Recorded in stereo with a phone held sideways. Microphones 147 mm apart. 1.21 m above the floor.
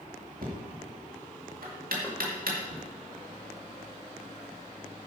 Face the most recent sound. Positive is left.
turn(degrees=15)  # may be behind; listen again after turning